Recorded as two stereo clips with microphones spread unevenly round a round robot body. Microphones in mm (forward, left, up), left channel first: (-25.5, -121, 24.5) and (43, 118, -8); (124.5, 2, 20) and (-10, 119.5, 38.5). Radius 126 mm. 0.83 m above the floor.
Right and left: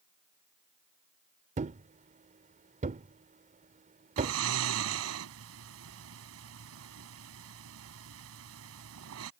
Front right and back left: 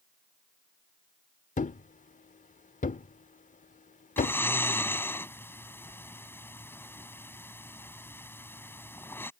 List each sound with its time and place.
1.6 s a thud: 10° left
4.2 s snoring: 40° left